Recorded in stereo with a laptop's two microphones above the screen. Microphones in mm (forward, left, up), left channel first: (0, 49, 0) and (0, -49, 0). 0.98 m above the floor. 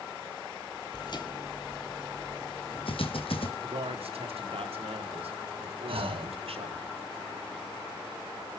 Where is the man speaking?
80° right, 2.5 m.